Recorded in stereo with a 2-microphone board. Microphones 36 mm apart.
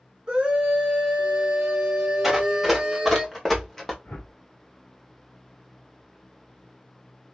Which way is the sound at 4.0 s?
50° left (ahead or behind).